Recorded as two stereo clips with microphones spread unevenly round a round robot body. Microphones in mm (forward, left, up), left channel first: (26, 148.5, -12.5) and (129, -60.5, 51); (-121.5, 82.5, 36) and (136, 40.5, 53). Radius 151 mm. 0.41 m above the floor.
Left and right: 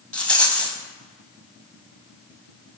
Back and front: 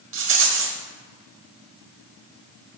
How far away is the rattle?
About 1.1 m.